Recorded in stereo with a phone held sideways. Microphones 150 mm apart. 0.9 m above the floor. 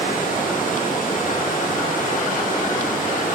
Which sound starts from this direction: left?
Running water, at 0.0 s.